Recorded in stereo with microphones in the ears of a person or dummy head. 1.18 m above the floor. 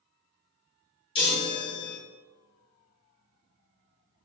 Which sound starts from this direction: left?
A chime, at 1.1 s.